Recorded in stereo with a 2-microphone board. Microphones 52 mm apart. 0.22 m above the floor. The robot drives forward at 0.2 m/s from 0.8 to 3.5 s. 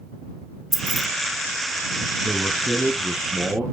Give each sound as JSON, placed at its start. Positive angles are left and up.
{"t": 0.7, "sound": "keys jangling", "side_deg": 0, "distance_m": 0.6}
{"t": 2.2, "sound": "a man speaking", "side_deg": -30, "distance_m": 1.8}